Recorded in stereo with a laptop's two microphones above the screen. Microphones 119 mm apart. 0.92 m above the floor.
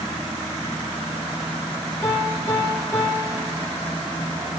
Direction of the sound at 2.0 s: 15° left (ahead or behind).